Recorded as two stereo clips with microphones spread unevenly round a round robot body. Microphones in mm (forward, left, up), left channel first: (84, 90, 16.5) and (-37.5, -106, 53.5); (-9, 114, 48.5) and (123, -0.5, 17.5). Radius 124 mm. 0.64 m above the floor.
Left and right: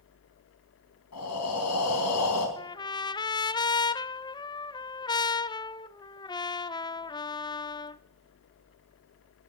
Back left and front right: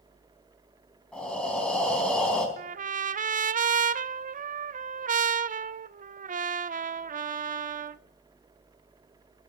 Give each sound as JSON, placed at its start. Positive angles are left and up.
{"t": 1.1, "sound": "breathing", "azimuth_deg": 55, "distance_m": 4.0}
{"t": 2.6, "sound": "a trumpet", "azimuth_deg": -10, "distance_m": 0.5}